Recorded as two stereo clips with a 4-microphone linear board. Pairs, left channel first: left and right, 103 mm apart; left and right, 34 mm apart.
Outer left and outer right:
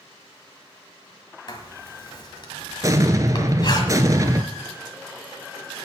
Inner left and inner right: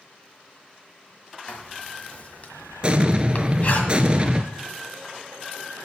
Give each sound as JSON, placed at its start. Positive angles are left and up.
{"t": 1.5, "sound": "writing", "side_deg": 45, "distance_m": 1.6}
{"t": 2.8, "sound": "an explosion", "side_deg": -35, "distance_m": 0.7}